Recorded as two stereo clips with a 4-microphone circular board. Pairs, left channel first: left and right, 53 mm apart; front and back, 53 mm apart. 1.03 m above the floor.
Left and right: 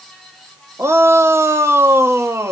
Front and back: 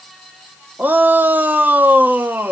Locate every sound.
0.8 s a shout: 125° right, 1.3 m